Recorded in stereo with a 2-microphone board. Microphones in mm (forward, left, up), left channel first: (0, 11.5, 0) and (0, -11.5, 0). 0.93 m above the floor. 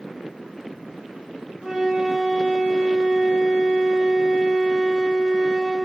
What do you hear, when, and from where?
1.6 s a flute: 35° right (ahead or behind), 1.7 m